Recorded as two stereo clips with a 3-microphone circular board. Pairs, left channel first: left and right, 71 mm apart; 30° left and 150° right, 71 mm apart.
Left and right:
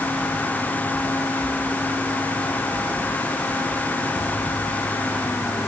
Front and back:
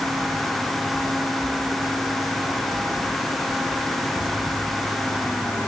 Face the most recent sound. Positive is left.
No sound to turn to.